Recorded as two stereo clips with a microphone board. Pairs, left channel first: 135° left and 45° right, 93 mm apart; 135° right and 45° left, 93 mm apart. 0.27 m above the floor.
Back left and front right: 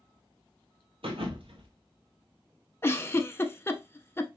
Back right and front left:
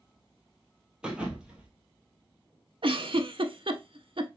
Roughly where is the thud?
Ahead right.